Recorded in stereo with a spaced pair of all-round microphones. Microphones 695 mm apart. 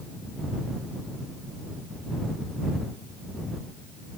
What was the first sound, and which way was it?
Only background noise.